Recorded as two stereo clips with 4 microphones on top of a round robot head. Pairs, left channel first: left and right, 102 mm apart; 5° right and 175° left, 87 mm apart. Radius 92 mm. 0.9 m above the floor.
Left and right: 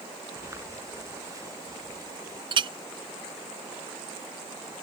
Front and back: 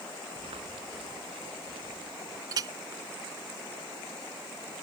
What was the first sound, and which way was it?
Footsteps, 155° right.